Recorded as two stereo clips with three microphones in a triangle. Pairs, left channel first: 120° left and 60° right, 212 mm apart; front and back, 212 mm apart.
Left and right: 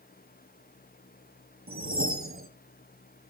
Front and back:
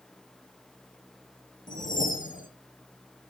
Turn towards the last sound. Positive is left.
turn(degrees=-50)